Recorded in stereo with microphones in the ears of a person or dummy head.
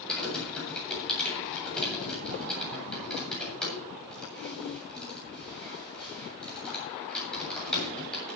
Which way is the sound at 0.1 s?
5° left (ahead or behind).